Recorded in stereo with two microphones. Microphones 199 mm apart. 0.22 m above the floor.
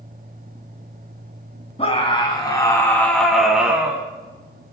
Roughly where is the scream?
Left.